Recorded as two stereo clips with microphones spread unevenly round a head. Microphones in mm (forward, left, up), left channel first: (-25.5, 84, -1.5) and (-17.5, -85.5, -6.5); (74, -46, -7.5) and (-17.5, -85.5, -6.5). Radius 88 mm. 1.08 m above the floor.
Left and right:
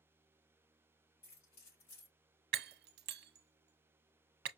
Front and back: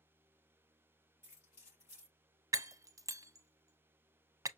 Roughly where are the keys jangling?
Left.